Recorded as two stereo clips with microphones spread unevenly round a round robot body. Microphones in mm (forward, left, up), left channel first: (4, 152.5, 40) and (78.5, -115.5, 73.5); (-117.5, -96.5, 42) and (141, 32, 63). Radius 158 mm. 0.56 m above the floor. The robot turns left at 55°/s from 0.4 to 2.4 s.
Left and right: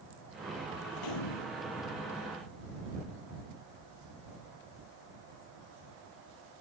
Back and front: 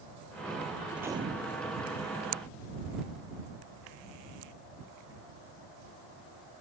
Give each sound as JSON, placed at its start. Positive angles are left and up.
{"t": 0.9, "sound": "a gunshot", "azimuth_deg": 115}